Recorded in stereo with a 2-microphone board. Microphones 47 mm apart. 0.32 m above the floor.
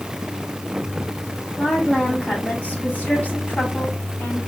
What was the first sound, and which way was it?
A woman speaking, 20° left (ahead or behind).